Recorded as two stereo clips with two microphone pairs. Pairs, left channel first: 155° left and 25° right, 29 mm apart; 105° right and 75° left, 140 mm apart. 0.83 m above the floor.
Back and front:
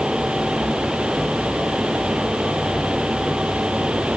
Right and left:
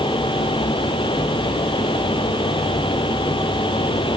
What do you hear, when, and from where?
Only background noise.